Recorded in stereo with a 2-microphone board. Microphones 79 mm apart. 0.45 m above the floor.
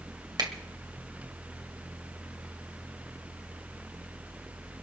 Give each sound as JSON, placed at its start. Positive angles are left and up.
{"t": 0.4, "sound": "a finger snap", "side_deg": -60, "distance_m": 2.0}